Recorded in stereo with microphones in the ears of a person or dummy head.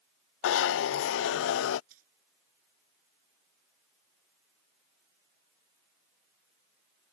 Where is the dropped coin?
55° right (ahead or behind).